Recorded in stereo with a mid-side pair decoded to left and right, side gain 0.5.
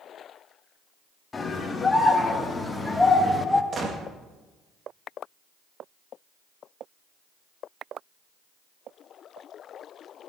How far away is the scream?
About 3 m.